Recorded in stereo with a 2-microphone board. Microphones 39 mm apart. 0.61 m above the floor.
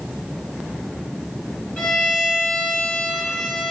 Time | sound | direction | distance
1.8 | a violin | 40° left (ahead or behind) | 3 m